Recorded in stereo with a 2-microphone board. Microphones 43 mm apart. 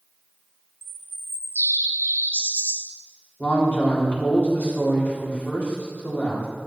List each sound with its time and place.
0.8 s a bird: 55° right (ahead or behind), 0.7 m
3.4 s a man speaking: 40° left (ahead or behind), 2 m